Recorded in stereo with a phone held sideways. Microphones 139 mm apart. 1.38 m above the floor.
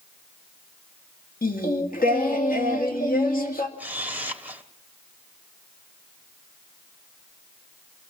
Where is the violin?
No violin in this recording.